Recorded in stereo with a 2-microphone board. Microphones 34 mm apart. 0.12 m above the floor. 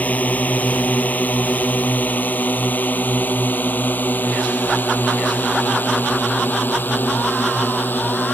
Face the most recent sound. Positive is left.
turn(degrees=65)  # may be behind; listen again after turning